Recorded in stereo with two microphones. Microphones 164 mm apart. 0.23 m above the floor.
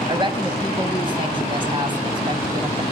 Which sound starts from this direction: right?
A woman speaking, at 0.1 s.